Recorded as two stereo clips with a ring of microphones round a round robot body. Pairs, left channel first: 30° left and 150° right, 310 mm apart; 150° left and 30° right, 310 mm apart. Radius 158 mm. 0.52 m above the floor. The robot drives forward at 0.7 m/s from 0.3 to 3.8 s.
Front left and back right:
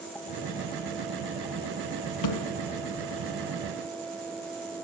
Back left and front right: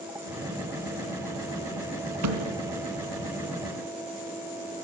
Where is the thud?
5° left, 3 m.